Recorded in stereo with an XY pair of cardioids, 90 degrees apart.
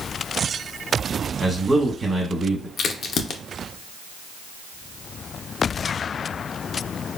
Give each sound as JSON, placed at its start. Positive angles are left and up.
{"t": 1.4, "sound": "a man speaking", "azimuth_deg": -25, "distance_m": 1.3}
{"t": 2.8, "sound": "a crack", "azimuth_deg": 65, "distance_m": 0.5}